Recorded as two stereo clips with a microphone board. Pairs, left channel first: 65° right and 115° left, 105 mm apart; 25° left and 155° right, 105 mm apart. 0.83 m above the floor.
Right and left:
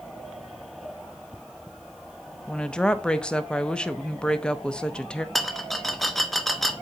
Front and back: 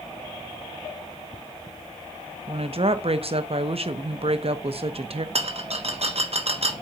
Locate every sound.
2.5 s a woman speaking: 145° right, 0.6 m
5.3 s a rattle: 155° right, 0.7 m